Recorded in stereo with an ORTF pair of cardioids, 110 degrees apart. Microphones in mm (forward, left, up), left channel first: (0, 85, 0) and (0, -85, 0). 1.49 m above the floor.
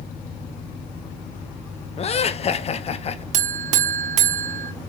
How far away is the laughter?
About 0.5 m.